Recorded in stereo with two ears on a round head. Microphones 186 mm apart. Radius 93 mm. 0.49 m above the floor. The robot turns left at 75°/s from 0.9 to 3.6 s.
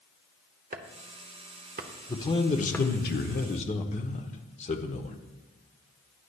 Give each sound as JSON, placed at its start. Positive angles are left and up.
{"t": 0.7, "sound": "chopping", "side_deg": -40, "distance_m": 0.9}
{"t": 2.1, "sound": "a man speaking", "azimuth_deg": 160, "distance_m": 1.0}